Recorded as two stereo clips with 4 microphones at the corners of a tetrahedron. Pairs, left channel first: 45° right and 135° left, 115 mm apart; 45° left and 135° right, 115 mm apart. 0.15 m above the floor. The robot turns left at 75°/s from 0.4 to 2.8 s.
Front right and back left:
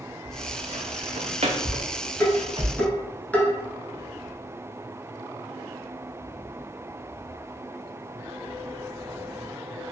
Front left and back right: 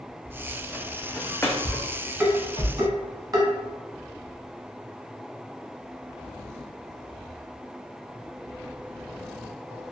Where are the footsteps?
135° left, 0.8 m; by 2.6 s 80° left, 0.8 m.